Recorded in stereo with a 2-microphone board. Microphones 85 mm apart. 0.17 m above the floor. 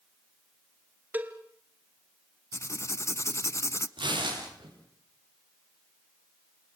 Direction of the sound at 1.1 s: 20° right (ahead or behind).